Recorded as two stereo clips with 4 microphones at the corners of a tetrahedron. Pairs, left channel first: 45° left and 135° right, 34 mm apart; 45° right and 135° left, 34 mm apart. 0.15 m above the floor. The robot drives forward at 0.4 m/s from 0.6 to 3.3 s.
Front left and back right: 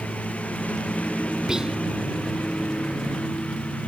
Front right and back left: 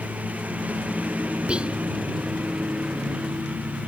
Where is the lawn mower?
90° left.